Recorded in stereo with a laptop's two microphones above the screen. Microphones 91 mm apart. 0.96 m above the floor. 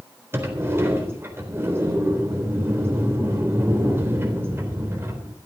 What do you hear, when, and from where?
0.3 s a sliding door: 30° right (ahead or behind), 4 m